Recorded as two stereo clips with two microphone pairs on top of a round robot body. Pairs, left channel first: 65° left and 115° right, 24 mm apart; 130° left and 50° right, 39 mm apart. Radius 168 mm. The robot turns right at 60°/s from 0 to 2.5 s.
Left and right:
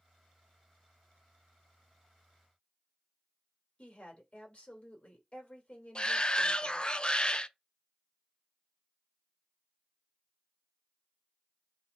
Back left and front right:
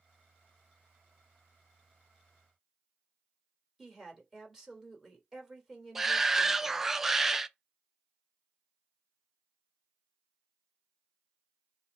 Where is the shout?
20° left, 0.7 m.